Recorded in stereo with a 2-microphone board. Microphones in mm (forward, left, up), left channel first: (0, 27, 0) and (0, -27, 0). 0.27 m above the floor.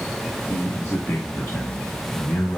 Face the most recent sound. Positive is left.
turn(degrees=45)  # may be behind; listen again after turning